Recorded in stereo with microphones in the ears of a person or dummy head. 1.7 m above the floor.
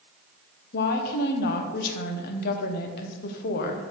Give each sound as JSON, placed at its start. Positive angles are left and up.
{"t": 0.7, "sound": "a woman speaking", "side_deg": 55, "distance_m": 1.1}